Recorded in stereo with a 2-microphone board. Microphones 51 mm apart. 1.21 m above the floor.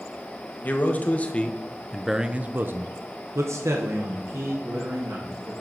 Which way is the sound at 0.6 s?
35° left (ahead or behind).